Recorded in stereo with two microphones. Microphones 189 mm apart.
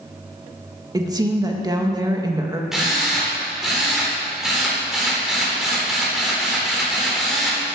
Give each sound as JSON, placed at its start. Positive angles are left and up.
{"t": 0.9, "sound": "a woman speaking", "side_deg": -20, "distance_m": 1.7}
{"t": 2.7, "sound": "a drill", "side_deg": 0, "distance_m": 3.5}